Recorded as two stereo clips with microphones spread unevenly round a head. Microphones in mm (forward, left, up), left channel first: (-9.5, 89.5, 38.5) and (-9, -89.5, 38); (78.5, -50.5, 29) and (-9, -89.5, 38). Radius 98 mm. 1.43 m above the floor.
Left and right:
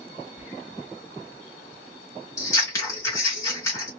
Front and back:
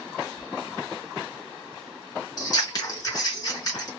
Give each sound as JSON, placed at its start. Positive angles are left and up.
{"t": 0.4, "sound": "whispering", "azimuth_deg": -175, "distance_m": 0.8}
{"t": 2.4, "sound": "scissors", "azimuth_deg": 30, "distance_m": 1.4}